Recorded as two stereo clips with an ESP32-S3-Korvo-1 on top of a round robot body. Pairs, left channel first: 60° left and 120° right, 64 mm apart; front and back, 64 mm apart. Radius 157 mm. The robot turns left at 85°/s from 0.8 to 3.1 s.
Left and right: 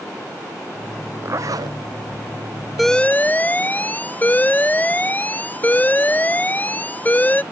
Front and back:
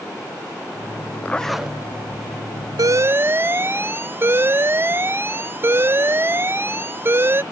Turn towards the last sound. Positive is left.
turn(degrees=125)